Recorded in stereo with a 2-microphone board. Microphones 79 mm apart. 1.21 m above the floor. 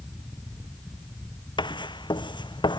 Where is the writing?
75° left (ahead or behind).